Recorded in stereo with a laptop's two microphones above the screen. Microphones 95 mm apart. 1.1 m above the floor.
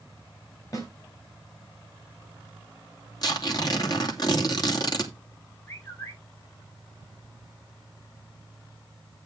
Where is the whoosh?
I don't hear a whoosh.